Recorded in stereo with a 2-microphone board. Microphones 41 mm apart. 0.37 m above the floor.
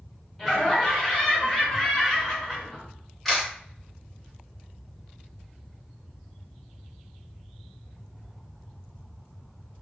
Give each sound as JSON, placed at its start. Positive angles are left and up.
{"t": 0.4, "sound": "laughter", "side_deg": 0, "distance_m": 1.3}
{"t": 3.2, "sound": "a camera shutter", "side_deg": 5, "distance_m": 1.1}